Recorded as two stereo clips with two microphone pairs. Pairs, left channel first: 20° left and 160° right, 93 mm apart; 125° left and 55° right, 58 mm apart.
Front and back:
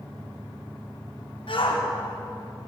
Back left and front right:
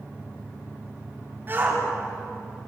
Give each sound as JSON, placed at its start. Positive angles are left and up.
{"t": 1.5, "sound": "a shout", "azimuth_deg": 0, "distance_m": 5.0}